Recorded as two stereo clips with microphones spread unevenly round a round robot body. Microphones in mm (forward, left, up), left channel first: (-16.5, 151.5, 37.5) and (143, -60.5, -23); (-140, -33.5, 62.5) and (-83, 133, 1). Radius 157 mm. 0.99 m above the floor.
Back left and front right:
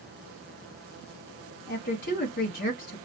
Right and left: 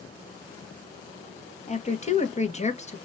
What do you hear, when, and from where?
1.7 s a woman speaking: 165° right, 1.5 m